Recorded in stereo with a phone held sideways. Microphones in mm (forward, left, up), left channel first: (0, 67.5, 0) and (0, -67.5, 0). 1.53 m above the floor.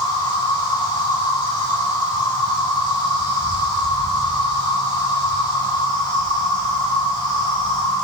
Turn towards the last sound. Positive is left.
turn(degrees=40)  # may be behind; listen again after turning